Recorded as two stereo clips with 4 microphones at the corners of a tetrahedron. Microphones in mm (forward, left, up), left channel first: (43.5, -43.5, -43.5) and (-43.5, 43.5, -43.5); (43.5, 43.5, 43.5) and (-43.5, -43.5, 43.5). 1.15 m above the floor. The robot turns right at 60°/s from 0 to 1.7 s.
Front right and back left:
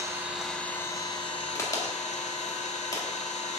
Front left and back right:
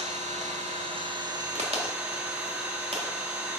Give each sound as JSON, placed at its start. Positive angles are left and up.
{"t": 0.0, "sound": "an engine running", "azimuth_deg": -160, "distance_m": 1.6}
{"t": 1.6, "sound": "a crack", "azimuth_deg": -110, "distance_m": 2.0}